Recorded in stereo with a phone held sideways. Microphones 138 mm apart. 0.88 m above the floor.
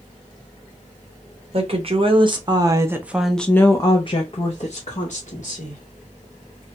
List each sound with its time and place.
1.5 s a woman speaking: 45° right (ahead or behind), 1.1 m; by 5.8 s 65° left (ahead or behind), 1.3 m